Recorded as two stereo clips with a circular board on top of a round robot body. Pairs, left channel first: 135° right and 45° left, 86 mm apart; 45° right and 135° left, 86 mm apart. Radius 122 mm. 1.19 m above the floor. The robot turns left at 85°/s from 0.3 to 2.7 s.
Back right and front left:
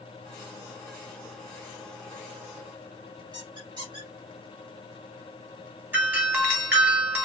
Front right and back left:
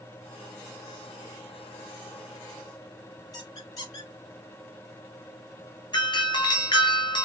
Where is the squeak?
5° left, 2 m.